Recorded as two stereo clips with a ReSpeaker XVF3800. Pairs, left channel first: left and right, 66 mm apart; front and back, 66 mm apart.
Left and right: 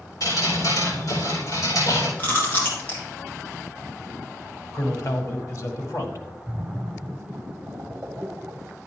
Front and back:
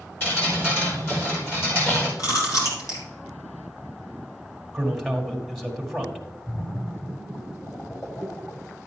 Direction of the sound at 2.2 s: 30° left.